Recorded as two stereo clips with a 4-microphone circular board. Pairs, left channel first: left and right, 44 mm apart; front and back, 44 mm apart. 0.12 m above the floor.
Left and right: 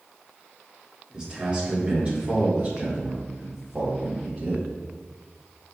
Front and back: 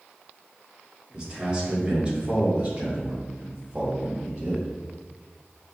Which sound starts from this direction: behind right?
A man speaking, at 1.1 s.